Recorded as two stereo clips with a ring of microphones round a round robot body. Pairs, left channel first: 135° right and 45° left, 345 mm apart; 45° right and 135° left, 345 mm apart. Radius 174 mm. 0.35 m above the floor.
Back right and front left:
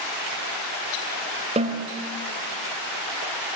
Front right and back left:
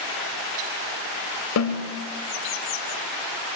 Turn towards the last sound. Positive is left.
turn(degrees=-20)